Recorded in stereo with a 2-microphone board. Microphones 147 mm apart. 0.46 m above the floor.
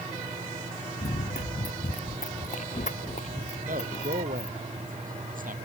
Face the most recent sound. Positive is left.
turn(degrees=-70)  # may be behind; listen again after turning